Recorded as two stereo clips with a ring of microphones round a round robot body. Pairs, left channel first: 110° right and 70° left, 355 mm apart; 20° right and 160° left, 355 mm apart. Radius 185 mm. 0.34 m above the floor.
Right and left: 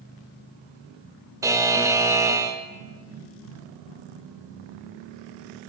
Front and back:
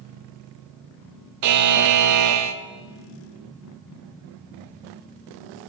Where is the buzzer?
145° left, 0.8 m.